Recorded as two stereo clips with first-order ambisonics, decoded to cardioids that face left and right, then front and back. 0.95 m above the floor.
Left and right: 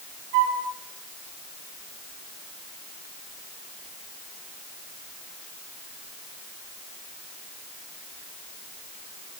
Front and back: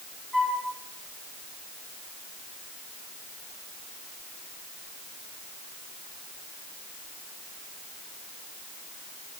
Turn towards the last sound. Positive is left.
turn(degrees=-90)